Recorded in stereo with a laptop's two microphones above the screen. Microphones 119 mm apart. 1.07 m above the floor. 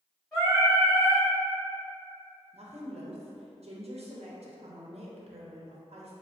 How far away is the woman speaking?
About 0.6 m.